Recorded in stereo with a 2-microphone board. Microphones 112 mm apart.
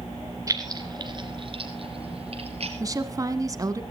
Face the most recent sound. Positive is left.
turn(degrees=-30)  # may be behind; listen again after turning